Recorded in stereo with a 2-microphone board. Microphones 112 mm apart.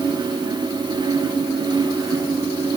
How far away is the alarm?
No alarm in this recording.